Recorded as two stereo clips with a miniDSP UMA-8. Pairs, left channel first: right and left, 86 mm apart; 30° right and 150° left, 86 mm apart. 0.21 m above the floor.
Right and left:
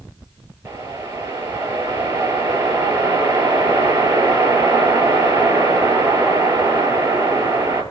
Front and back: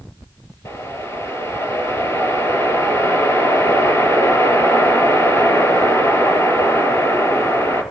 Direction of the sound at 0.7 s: 30° left.